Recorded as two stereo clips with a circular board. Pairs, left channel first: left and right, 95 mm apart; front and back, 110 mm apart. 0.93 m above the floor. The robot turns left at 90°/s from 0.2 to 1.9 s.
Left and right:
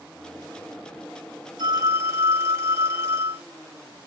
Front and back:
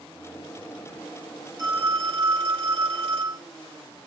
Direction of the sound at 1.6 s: 120° right.